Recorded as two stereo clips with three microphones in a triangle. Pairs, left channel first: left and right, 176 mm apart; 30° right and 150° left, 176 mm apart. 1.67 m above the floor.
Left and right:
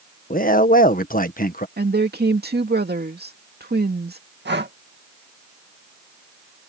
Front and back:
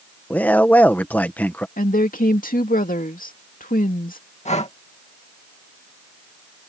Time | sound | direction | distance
0.3 | a man speaking | 50° left | ?
1.8 | a woman speaking | 70° right | ?
4.5 | breathing | 80° right | ?